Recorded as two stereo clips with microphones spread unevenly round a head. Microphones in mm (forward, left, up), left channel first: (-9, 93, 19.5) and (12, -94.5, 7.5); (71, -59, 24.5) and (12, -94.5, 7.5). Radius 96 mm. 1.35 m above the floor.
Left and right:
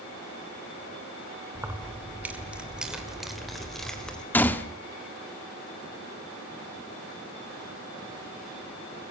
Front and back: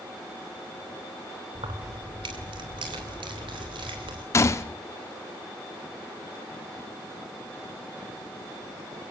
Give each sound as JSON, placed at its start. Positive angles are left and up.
{"t": 1.6, "sound": "keys jangling", "azimuth_deg": -160, "distance_m": 2.5}
{"t": 4.3, "sound": "a gunshot", "azimuth_deg": 20, "distance_m": 1.2}